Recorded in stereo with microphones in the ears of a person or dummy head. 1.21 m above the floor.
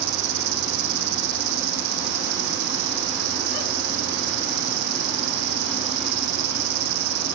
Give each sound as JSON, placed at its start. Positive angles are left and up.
{"t": 0.0, "sound": "an insect", "side_deg": -70, "distance_m": 0.8}